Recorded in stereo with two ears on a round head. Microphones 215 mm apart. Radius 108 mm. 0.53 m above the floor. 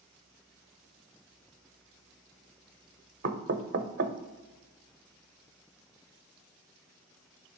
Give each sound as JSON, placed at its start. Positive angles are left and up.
{"t": 3.2, "sound": "knocking", "side_deg": -45, "distance_m": 0.8}